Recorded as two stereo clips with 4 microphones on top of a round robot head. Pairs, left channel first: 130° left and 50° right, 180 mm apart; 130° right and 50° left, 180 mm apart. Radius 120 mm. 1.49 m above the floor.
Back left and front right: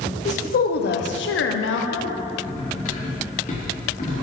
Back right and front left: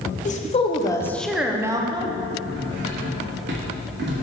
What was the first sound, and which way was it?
A woman speaking, straight behind.